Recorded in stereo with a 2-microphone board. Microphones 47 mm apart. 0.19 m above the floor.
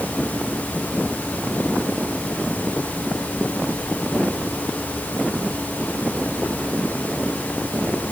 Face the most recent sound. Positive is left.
No sound to turn to.